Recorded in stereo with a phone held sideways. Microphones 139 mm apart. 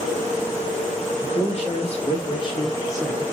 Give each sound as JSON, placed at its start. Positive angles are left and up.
{"t": 1.2, "sound": "a man speaking", "side_deg": 50, "distance_m": 1.7}